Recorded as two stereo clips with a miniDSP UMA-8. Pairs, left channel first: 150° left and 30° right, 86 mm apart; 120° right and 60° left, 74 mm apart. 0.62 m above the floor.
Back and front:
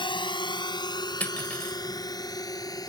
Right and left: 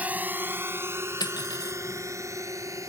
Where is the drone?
130° left; by 2.9 s 105° left.